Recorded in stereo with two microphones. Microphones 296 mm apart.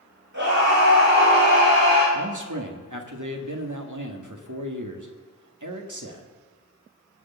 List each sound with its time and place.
0.3 s a scream: 75° right (ahead or behind), 7.5 m; by 2.0 s 85° right, 9 m
2.1 s a man speaking: 85° right, 1.9 m